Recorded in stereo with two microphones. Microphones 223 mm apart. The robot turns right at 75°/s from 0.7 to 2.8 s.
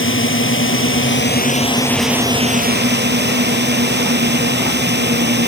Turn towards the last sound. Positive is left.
turn(degrees=-125)